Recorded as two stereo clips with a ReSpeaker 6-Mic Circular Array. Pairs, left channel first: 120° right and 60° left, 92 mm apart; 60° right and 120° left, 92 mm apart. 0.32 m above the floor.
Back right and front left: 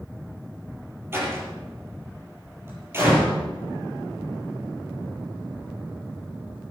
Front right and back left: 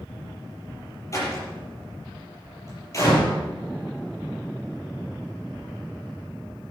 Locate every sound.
1.1 s a door slam: 5° right, 5.5 m